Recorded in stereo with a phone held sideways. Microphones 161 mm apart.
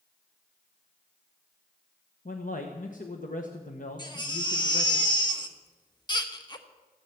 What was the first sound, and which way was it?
A man speaking, 55° left (ahead or behind).